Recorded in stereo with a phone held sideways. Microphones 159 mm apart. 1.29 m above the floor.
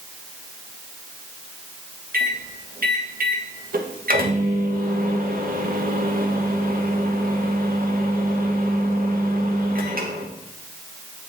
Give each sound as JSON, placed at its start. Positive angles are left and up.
{"t": 2.1, "sound": "a microwave", "side_deg": -65, "distance_m": 1.2}